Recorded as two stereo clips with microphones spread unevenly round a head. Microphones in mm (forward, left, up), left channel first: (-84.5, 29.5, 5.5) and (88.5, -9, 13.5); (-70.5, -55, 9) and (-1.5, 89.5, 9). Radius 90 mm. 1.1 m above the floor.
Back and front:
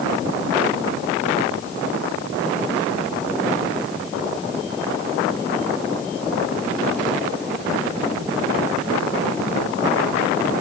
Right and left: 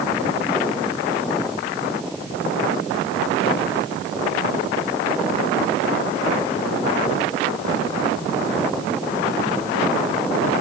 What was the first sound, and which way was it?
Only background noise.